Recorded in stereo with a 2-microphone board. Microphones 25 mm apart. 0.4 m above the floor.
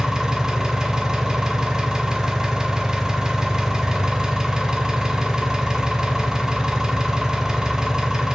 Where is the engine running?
20° right (ahead or behind), 0.7 m.